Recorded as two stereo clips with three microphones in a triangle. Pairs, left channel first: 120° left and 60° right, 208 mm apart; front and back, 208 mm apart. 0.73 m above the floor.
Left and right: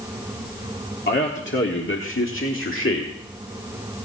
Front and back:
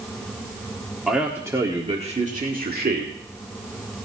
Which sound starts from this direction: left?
A man speaking, at 1.1 s.